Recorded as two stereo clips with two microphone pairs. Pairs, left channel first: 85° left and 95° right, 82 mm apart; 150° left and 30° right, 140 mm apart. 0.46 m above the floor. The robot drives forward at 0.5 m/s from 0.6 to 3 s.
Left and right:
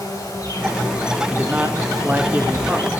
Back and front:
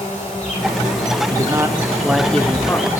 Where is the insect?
130° left, 5 m; by 3.0 s 140° left, 5.5 m.